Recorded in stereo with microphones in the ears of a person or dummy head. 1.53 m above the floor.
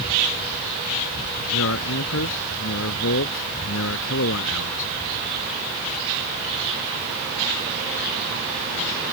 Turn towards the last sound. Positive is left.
turn(degrees=65)  # may be behind; listen again after turning